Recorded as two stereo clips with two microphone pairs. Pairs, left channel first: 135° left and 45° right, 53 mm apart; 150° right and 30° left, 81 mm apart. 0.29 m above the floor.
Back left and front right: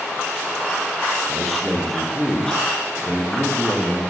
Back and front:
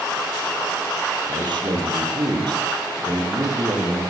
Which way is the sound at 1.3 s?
45° left.